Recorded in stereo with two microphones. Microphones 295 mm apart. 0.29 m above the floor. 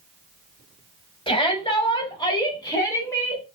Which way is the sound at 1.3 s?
15° left (ahead or behind).